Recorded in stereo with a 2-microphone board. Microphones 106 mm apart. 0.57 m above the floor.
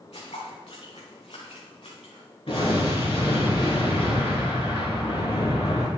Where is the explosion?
75° left (ahead or behind), 3.5 m.